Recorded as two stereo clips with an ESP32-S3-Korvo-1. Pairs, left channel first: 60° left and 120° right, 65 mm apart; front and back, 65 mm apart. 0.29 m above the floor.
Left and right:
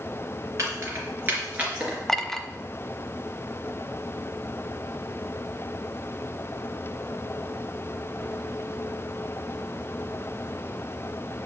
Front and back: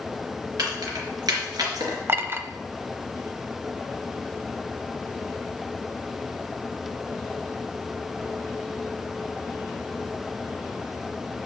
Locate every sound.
0.6 s keys jangling: 165° right, 3 m; by 2.0 s 165° left, 3 m
2.1 s a clink: 145° left, 0.7 m